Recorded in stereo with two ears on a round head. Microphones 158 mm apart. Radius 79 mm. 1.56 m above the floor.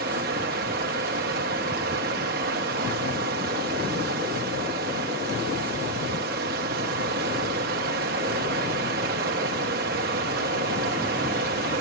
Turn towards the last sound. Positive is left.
turn(degrees=-55)  # may be behind; listen again after turning